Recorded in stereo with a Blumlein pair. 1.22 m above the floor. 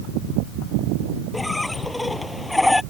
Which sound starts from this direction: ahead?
A squeak, at 1.3 s.